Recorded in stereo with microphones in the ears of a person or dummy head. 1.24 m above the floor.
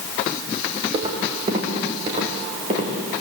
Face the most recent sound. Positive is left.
turn(degrees=-35)  # may be behind; listen again after turning